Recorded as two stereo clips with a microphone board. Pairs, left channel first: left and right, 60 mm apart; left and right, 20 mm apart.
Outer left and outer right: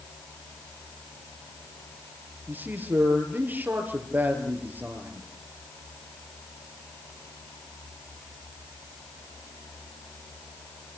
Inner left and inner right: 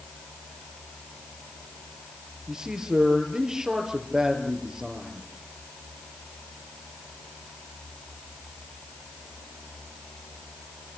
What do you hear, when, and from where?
2.5 s a man speaking: 30° right (ahead or behind), 5 m